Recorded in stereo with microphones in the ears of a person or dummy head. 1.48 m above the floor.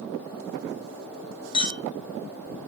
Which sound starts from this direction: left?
A clink, at 1.5 s.